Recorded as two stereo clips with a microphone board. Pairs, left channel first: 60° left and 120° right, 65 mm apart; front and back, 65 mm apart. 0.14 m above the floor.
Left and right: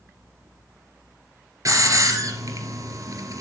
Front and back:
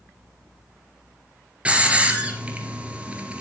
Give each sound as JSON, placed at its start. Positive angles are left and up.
{"t": 1.6, "sound": "a hiss", "azimuth_deg": -110, "distance_m": 2.0}